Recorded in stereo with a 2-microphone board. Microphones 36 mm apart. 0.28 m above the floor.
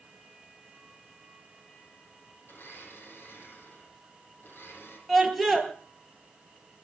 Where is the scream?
5° left (ahead or behind), 5 m.